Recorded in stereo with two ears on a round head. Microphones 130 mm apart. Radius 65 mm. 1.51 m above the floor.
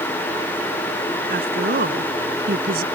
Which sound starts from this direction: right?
A woman speaking, at 1.3 s.